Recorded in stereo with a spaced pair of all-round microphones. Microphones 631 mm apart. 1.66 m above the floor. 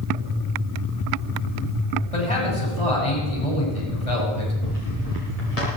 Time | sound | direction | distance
2.1 | a man speaking | 60° left (ahead or behind) | 6.5 m
4.6 | footsteps | 70° left (ahead or behind) | 8.5 m